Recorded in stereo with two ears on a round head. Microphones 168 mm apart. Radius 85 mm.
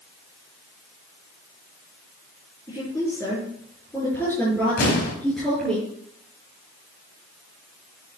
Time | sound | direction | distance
2.7 | a woman speaking | 20° left (ahead or behind) | 6 m
4.8 | an explosion | 50° left (ahead or behind) | 4 m